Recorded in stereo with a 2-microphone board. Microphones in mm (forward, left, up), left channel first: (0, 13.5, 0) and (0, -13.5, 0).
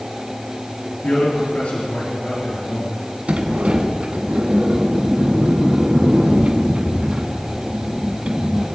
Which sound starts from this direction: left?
A man speaking, at 1.0 s.